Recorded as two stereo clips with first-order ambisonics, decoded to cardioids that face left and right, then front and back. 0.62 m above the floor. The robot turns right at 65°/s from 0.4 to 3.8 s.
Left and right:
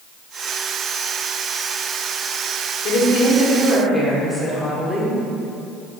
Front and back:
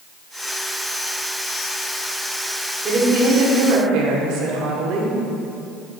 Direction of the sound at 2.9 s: 115° left.